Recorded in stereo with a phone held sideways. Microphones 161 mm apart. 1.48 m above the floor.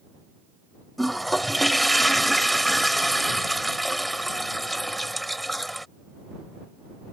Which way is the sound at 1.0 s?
Centre (ahead or behind).